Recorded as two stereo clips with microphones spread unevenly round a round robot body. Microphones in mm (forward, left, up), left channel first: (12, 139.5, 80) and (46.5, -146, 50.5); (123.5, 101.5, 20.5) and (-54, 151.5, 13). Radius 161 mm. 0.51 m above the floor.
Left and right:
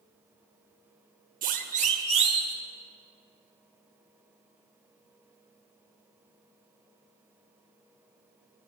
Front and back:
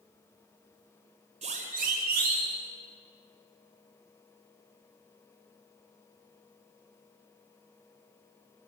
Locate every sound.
1.4 s a siren: 140° right, 2 m; by 2.5 s 155° right, 3.5 m